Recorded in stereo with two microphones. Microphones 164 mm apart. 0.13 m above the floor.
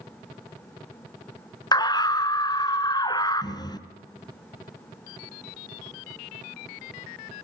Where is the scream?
25° left (ahead or behind), 1.3 m.